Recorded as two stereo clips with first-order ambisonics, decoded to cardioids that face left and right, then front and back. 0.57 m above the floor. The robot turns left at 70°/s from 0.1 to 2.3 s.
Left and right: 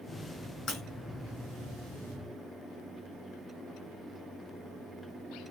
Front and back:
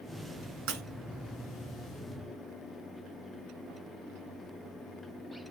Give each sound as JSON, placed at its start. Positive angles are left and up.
{"t": 0.7, "sound": "breaking glass", "azimuth_deg": 150, "distance_m": 3.0}